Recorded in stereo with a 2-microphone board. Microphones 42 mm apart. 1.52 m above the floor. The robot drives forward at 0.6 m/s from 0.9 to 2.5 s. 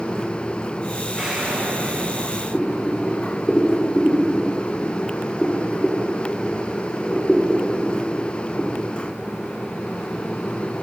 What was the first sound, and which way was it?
An explosion, 10° right (ahead or behind).